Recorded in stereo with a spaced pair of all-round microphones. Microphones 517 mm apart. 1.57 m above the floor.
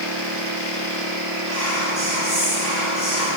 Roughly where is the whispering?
Right.